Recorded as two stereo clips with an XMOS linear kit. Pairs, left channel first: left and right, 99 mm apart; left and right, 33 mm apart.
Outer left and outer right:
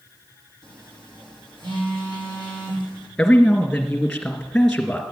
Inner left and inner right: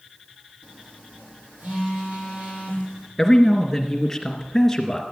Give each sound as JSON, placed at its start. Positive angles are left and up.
{"t": 0.6, "sound": "a phone buzzing", "side_deg": -50, "distance_m": 5.5}
{"t": 3.2, "sound": "a man speaking", "side_deg": 5, "distance_m": 2.5}